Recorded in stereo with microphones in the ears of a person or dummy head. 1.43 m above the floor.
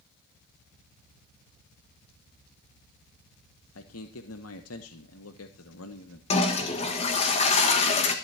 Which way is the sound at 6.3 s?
30° left (ahead or behind).